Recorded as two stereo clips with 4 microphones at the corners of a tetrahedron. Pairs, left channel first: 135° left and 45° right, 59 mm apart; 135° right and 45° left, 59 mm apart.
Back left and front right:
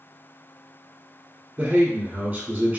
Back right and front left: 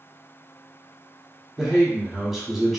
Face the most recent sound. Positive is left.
turn(degrees=-35)